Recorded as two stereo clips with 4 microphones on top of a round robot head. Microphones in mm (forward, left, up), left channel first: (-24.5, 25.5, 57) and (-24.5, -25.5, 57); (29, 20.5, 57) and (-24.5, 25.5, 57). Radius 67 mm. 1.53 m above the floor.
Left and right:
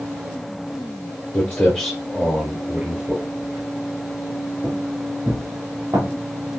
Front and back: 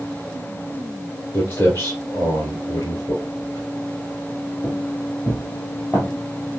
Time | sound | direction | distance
1.3 | footsteps | 40° left | 1.6 m